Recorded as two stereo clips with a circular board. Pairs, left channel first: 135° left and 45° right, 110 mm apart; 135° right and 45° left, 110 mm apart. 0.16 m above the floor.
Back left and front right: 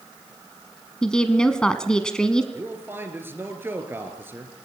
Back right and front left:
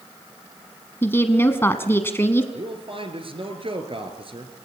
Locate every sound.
1.0 s a woman speaking: 155° right, 1.1 m
2.5 s a man speaking: 25° left, 3 m